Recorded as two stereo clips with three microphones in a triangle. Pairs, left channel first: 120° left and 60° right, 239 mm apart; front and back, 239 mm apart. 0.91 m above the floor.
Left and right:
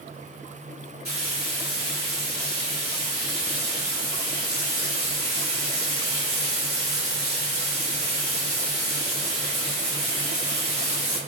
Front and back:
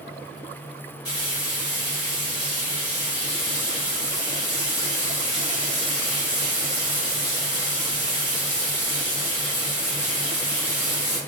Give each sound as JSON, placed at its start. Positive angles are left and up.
{"t": 1.1, "sound": "frying", "azimuth_deg": -35, "distance_m": 1.7}